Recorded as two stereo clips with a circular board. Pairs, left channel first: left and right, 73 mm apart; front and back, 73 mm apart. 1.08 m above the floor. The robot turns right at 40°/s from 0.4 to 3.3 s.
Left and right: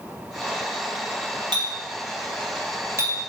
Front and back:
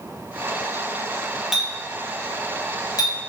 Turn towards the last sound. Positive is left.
turn(degrees=-25)